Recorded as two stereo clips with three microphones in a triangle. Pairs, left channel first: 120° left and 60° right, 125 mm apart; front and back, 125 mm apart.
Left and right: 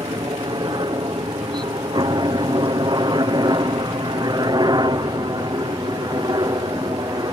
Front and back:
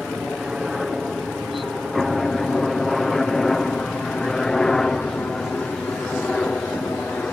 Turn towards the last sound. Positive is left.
turn(degrees=-75)